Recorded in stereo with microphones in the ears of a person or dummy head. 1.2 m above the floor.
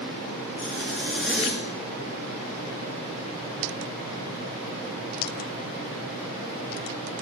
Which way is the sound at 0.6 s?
5° left (ahead or behind).